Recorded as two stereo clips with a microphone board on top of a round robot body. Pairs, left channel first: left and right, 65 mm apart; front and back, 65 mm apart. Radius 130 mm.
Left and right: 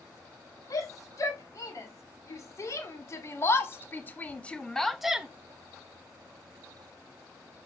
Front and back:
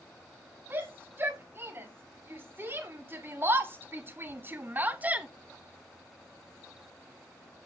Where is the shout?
120° left, 4.5 m; by 5.3 s 145° right, 1.3 m.